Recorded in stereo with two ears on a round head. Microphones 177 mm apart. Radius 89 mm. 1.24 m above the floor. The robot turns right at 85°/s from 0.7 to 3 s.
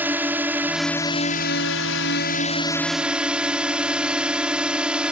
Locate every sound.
0.0 s a drone: 10° right; by 5.1 s 175° right